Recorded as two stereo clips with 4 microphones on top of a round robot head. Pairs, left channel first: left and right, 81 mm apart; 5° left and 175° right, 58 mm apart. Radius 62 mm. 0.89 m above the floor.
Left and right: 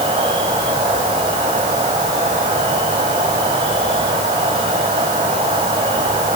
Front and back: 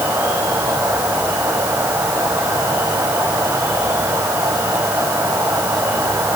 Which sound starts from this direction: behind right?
An insect, at 0.0 s.